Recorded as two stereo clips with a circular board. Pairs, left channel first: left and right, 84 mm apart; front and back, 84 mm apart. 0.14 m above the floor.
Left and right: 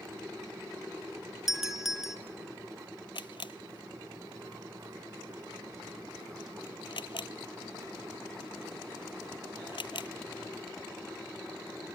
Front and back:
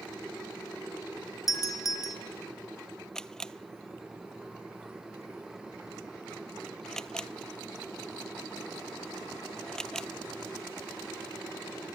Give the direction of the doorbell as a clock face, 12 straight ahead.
12 o'clock.